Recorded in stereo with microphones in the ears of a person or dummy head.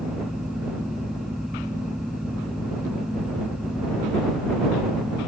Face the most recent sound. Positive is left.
turn(degrees=-5)  # may be behind; listen again after turning